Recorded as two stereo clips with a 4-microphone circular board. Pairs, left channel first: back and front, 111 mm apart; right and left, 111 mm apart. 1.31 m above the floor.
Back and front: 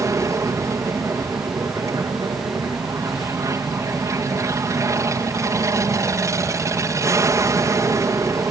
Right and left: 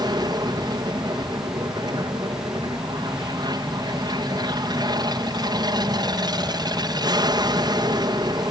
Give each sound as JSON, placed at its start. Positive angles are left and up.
{"t": 0.0, "sound": "an aircraft", "azimuth_deg": 50}